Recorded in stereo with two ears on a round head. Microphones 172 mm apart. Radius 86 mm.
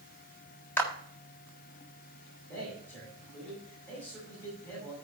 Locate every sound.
0.8 s a clap: 10° left (ahead or behind), 1.6 m
2.5 s a man speaking: 10° left (ahead or behind), 5.5 m